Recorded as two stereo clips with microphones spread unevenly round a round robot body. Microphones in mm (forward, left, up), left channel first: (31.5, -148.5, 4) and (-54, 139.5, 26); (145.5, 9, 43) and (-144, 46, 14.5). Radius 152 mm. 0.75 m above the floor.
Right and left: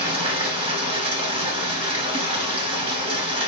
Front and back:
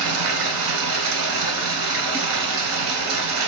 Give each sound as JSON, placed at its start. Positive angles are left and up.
{"t": 0.0, "sound": "running water", "azimuth_deg": 170, "distance_m": 0.9}